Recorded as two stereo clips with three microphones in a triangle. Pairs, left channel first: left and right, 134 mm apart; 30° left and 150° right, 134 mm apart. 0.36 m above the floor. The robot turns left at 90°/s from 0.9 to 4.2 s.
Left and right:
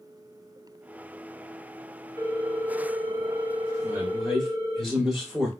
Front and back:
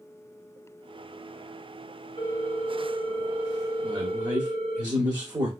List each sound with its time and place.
2.2 s a ringtone: 60° left, 1.4 m; by 4.8 s 120° right, 1.4 m
3.8 s a man speaking: 145° right, 0.9 m; by 5.5 s straight behind, 0.9 m